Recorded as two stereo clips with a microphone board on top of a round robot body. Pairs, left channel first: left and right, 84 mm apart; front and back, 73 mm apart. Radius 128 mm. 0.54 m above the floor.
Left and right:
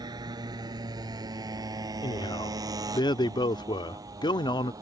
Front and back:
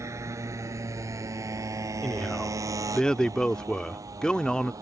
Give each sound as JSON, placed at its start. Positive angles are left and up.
{"t": 0.0, "sound": "a motorcycle", "azimuth_deg": -130}
{"t": 2.0, "sound": "a man speaking", "azimuth_deg": 80}